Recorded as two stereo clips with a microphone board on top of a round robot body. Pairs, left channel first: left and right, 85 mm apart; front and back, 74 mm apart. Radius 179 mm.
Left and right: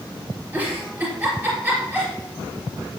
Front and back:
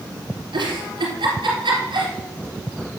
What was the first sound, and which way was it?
A giggle, 160° right.